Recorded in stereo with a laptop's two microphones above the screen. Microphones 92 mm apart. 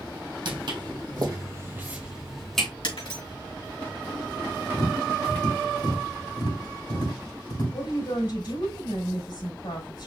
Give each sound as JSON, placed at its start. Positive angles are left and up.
{"t": 0.5, "sound": "footsteps", "side_deg": -65, "distance_m": 2.0}
{"t": 2.8, "sound": "breaking glass", "side_deg": 75, "distance_m": 3.0}
{"t": 4.7, "sound": "tapping", "side_deg": 60, "distance_m": 3.5}
{"t": 7.7, "sound": "a woman speaking", "side_deg": 60, "distance_m": 4.0}